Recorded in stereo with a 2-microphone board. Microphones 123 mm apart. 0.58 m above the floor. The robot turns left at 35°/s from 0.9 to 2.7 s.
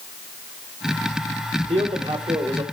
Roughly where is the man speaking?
Right.